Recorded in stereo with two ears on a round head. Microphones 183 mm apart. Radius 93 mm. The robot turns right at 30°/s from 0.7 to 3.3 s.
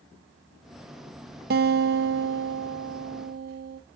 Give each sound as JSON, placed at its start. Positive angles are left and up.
{"t": 1.5, "sound": "a guitar", "azimuth_deg": -115, "distance_m": 0.7}